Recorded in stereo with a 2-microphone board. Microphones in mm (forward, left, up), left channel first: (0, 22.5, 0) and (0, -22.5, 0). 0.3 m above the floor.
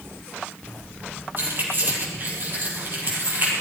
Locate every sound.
1.4 s keys jangling: 45° right (ahead or behind), 5.5 m